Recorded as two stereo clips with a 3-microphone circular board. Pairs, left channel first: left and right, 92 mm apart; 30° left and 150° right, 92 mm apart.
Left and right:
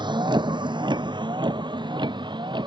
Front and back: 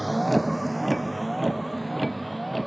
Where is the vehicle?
60° right.